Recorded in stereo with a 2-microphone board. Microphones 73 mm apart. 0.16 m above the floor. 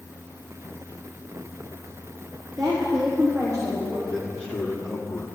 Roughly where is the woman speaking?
Right.